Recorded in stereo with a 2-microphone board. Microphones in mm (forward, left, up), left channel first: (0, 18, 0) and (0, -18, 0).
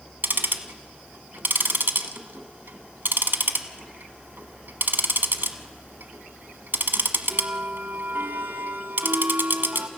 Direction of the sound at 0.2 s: 75° right (ahead or behind).